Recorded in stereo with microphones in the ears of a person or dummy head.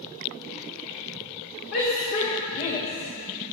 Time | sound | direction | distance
1.7 | a shout | 50° left (ahead or behind) | 2.5 m